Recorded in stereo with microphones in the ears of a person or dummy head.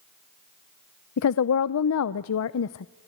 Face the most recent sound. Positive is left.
turn(degrees=75)  # may be behind; listen again after turning